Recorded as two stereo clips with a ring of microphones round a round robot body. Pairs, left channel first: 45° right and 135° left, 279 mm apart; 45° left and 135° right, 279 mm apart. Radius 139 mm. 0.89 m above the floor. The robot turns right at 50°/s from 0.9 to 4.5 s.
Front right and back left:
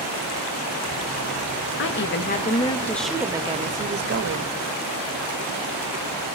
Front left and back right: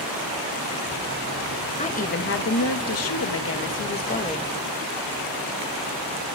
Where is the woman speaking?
20° right, 1.2 m; by 4.5 s 120° left, 1.2 m.